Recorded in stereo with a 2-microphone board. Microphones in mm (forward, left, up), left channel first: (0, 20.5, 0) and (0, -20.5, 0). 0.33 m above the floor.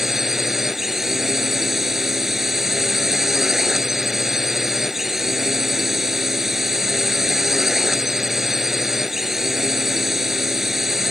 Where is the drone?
5° right (ahead or behind).